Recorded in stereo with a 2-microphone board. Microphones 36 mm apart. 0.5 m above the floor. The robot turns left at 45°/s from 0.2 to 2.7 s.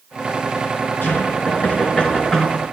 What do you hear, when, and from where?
1.0 s knocking: 75° left, 4.5 m; by 2.6 s straight ahead, 4.5 m